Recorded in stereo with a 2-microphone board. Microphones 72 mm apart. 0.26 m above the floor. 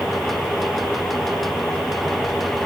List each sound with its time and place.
Only background noise.